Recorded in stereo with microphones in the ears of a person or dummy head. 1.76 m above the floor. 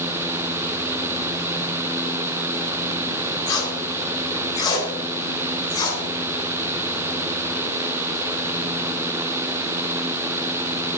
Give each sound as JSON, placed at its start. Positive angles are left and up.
{"t": 3.5, "sound": "tape being pulled", "side_deg": 30, "distance_m": 4.0}